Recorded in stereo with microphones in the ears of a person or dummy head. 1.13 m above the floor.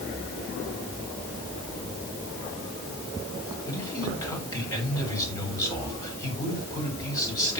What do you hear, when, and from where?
3.7 s a man speaking: 20° left (ahead or behind), 7 m